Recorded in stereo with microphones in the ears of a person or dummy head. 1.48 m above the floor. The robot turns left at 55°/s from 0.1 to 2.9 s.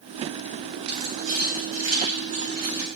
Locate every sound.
0.9 s keys jangling: 50° right (ahead or behind), 3.5 m; by 2.9 s 20° right (ahead or behind), 3.5 m